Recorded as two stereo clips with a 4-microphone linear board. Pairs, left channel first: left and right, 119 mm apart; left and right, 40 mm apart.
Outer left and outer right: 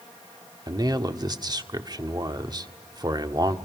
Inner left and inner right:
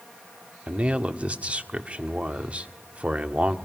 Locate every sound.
0.7 s a man speaking: 35° right (ahead or behind), 1.4 m